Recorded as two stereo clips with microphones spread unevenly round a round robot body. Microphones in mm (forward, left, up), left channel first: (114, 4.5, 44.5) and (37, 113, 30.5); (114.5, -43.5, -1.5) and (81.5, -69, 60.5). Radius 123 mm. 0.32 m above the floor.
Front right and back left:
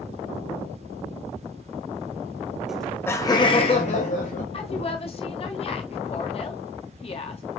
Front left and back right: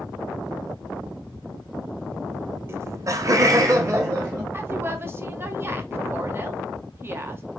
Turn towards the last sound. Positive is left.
turn(degrees=-35)